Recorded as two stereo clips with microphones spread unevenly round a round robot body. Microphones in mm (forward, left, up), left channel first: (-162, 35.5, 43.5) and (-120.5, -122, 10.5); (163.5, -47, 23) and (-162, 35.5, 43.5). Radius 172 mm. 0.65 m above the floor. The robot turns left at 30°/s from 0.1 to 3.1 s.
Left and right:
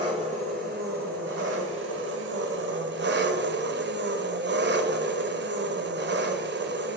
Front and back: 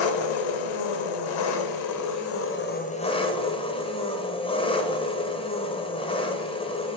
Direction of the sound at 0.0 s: Straight ahead.